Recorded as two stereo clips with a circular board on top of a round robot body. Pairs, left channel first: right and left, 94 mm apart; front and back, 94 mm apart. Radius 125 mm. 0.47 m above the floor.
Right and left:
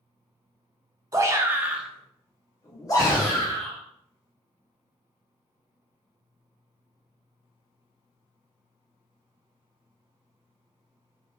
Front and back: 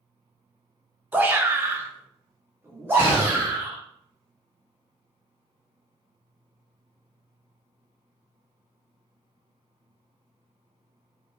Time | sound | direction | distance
1.1 | a shout | 120° left | 0.9 m
3.0 | a gunshot | 25° right | 1.4 m